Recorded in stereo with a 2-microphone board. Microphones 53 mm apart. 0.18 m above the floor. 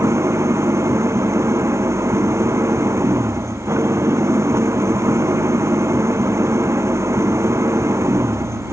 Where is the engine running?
60° right (ahead or behind).